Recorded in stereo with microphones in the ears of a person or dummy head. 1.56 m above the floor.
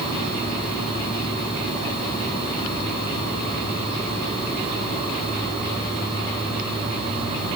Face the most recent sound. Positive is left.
No sound to turn to.